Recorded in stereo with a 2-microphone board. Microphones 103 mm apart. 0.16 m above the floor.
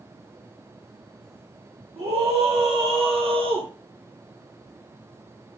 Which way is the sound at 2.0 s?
75° right (ahead or behind).